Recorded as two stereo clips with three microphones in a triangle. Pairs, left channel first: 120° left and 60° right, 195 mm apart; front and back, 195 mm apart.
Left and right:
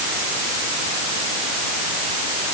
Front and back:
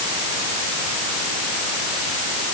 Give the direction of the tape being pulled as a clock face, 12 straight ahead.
I don't hear tape being pulled.